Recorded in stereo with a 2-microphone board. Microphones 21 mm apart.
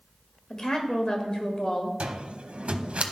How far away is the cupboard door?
About 0.8 m.